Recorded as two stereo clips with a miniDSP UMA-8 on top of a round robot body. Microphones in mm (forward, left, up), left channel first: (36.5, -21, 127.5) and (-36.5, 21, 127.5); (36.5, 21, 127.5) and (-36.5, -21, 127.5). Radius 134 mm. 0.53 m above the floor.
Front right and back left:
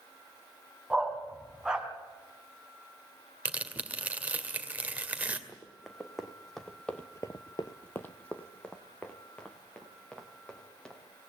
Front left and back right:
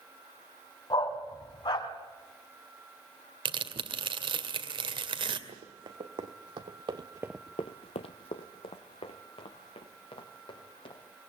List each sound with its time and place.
0.9 s a dog barking: 70° left, 2.5 m
3.5 s tearing paper: 140° right, 2 m
5.5 s running footsteps: 120° right, 3 m; by 11.0 s 50° left, 5.5 m